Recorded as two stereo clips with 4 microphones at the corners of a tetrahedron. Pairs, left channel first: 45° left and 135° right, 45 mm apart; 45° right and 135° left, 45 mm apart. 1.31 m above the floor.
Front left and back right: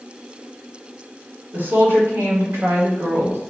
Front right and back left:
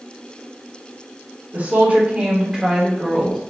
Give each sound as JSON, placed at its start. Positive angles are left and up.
{"t": 1.5, "sound": "a woman speaking", "azimuth_deg": -175, "distance_m": 1.8}